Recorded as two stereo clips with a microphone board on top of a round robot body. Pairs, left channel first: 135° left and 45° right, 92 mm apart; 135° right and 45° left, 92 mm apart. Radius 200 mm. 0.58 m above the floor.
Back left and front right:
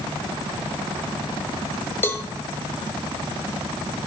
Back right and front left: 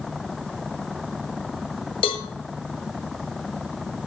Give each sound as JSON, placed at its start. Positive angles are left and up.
{"t": 2.0, "sound": "a cowbell", "azimuth_deg": -160, "distance_m": 1.1}